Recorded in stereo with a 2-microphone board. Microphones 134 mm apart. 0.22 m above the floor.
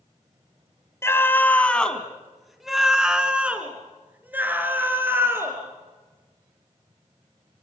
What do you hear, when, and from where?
1.0 s a scream: 20° left (ahead or behind), 1.6 m; by 5.6 s 15° right (ahead or behind), 4 m